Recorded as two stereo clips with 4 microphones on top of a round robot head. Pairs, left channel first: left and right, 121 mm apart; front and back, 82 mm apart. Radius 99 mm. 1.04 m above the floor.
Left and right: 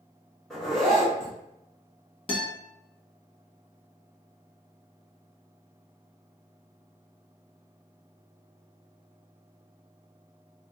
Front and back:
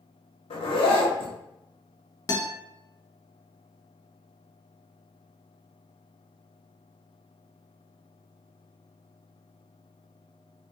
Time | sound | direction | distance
0.5 | a zipper | straight ahead | 0.8 m
2.3 | a guitar | 45° left | 1.1 m